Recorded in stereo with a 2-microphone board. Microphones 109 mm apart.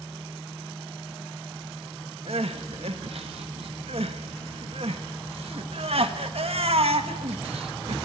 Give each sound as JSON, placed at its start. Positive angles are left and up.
{"t": 2.3, "sound": "crying", "side_deg": -70, "distance_m": 1.3}